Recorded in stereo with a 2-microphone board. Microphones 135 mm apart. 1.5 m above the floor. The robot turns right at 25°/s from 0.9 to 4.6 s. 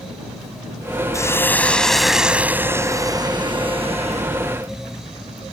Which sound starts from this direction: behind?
A hiss, at 1.1 s.